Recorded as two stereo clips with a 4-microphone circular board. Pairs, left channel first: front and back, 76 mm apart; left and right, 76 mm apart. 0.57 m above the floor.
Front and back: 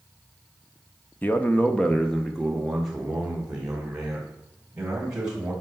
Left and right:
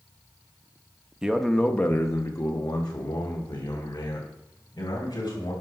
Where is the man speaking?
20° right, 0.8 m; by 5.5 s 100° left, 3.5 m.